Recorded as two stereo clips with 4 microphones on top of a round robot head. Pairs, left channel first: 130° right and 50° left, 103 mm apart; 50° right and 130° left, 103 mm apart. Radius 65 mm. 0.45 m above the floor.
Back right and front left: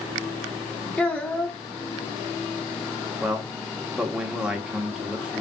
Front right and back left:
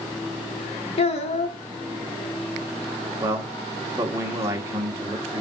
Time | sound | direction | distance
1.0 | a child speaking | 45° right | 0.8 m
3.2 | a man speaking | 120° left | 1.1 m